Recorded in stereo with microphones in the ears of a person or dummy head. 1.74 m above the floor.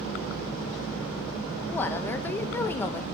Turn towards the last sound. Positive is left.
turn(degrees=15)  # may be behind; listen again after turning